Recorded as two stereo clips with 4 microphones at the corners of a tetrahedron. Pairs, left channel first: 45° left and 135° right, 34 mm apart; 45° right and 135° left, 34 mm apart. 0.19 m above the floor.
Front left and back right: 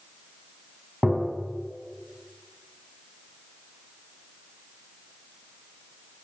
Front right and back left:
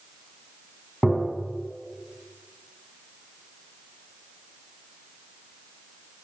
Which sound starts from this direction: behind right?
Tapping, at 1.0 s.